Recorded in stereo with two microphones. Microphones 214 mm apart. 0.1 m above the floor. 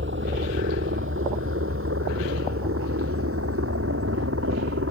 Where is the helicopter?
55° right (ahead or behind); by 4.9 s 75° right (ahead or behind).